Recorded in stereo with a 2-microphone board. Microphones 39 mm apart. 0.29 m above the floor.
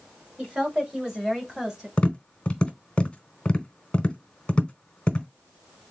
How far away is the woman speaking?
About 1.5 m.